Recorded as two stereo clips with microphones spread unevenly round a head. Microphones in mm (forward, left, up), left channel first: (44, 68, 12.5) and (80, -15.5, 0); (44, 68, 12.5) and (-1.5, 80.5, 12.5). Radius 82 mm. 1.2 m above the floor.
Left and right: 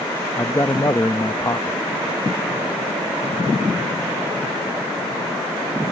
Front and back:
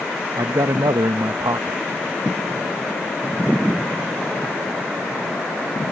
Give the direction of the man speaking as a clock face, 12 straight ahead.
6 o'clock.